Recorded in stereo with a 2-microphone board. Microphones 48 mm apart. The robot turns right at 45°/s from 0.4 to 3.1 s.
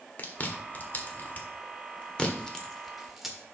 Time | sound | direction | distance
0.2 | chewing | 40° left (ahead or behind) | 1.5 m